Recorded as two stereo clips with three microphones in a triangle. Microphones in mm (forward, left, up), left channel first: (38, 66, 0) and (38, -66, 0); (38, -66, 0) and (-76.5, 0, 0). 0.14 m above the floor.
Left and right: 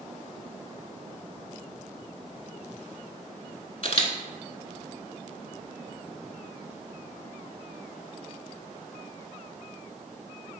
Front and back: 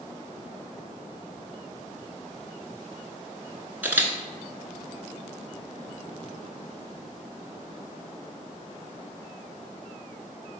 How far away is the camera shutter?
About 0.7 m.